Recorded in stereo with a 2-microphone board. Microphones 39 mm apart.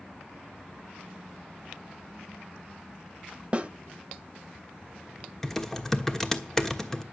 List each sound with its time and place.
3.5 s a snare drum: 30° right (ahead or behind), 1.6 m
5.4 s typing on a keyboard: 10° left (ahead or behind), 1.2 m